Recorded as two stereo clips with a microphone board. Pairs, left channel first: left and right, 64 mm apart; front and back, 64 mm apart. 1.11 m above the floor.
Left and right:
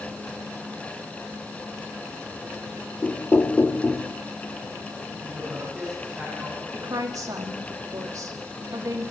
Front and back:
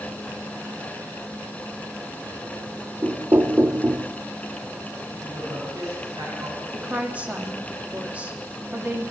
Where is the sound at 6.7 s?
110° right, 1.8 m.